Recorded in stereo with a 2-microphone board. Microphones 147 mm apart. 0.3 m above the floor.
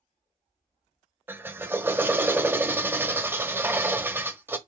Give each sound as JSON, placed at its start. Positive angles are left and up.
{"t": 1.3, "sound": "a drill", "side_deg": -15, "distance_m": 1.0}